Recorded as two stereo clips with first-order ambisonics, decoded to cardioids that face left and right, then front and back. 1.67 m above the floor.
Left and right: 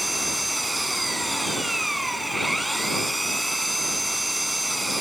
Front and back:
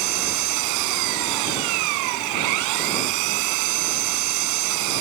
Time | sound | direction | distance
0.0 | an engine running | 175° right | ?